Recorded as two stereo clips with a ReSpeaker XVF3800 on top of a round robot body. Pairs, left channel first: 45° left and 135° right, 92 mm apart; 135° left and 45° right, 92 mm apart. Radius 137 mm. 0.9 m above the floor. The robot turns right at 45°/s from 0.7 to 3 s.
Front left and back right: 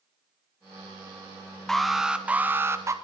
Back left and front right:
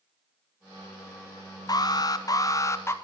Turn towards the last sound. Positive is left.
turn(degrees=-175)